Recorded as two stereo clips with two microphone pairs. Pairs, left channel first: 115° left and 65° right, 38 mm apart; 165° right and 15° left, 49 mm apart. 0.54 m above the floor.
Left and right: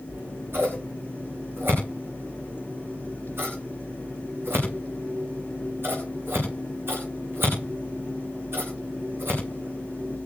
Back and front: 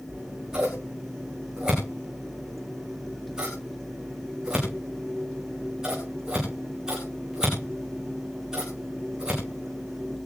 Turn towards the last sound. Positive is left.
turn(degrees=-60)